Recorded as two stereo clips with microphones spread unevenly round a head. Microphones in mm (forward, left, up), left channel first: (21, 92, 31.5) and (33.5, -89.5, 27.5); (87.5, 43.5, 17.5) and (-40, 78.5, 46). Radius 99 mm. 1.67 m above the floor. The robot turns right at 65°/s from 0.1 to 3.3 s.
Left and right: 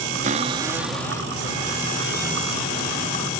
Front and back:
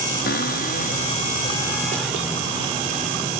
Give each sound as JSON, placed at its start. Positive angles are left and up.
{"t": 0.2, "sound": "a cupboard door", "azimuth_deg": -40}